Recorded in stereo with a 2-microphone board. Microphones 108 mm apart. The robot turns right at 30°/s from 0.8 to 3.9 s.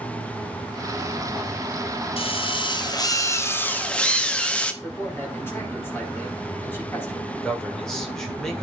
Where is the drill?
115° left, 1.4 m; by 4.7 s 170° left, 1.4 m.